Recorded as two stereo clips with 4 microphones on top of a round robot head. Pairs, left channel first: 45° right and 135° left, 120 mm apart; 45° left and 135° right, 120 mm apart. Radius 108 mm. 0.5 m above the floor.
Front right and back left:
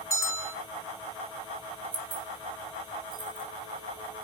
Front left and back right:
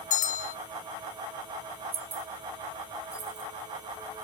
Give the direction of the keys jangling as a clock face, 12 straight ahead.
6 o'clock.